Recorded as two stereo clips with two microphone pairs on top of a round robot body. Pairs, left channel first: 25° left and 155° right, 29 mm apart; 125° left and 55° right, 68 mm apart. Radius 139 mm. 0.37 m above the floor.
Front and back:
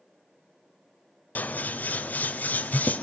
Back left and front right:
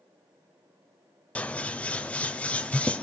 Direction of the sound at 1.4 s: 55° left.